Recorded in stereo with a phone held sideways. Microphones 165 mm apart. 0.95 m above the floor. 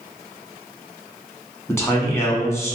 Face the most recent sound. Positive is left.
turn(degrees=15)  # may be behind; listen again after turning